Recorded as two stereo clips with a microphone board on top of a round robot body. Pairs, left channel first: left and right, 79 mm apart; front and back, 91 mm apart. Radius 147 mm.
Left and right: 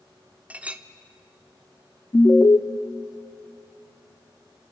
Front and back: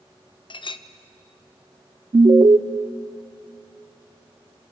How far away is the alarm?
About 0.9 m.